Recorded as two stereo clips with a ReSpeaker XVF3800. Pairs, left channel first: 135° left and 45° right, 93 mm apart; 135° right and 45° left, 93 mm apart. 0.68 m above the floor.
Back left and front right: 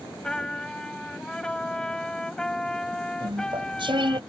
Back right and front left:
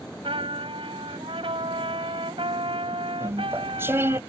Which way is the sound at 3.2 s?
20° right.